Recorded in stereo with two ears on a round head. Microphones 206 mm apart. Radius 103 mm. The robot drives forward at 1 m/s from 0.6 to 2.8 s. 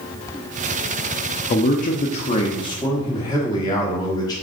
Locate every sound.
1.5 s a man speaking: 30° left (ahead or behind), 0.7 m; by 4.3 s 15° left (ahead or behind), 1.2 m